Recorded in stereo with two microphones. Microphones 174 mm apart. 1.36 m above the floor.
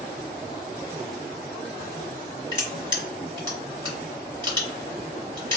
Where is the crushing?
25° right (ahead or behind), 1.6 m.